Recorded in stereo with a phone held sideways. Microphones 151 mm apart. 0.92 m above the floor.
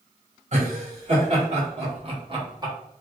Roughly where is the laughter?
Right.